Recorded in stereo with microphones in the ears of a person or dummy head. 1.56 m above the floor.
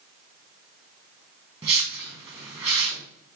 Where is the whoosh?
25° right (ahead or behind), 1.5 m.